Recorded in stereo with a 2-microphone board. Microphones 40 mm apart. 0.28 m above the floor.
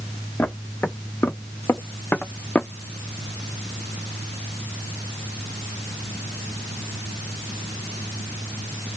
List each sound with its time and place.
0.4 s footsteps: 80° left, 1.5 m; by 2.7 s 25° left (ahead or behind), 0.6 m